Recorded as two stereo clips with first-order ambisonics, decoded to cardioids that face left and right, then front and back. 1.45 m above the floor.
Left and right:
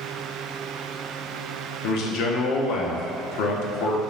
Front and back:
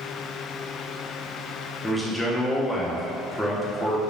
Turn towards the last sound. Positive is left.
turn(degrees=85)